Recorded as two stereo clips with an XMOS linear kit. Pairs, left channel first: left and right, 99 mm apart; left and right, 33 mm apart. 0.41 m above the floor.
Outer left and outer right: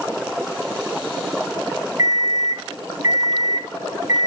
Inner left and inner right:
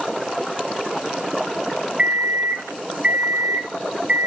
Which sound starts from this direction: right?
An alarm clock, at 2.0 s.